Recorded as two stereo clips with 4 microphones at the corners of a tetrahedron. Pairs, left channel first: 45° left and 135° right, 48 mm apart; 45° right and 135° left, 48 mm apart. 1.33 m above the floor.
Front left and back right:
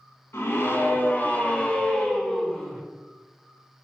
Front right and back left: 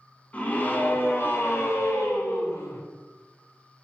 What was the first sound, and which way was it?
A scream, 15° left.